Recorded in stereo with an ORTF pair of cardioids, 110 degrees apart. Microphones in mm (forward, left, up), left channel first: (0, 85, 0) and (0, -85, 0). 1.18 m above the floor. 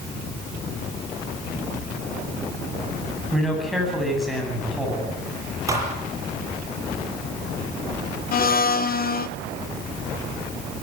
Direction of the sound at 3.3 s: Straight ahead.